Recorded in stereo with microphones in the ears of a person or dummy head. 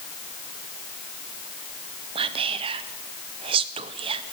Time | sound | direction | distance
2.1 | whispering | 25° right (ahead or behind) | 0.5 m